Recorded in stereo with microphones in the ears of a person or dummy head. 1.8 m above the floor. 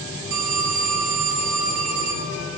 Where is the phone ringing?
65° right (ahead or behind), 2.5 m.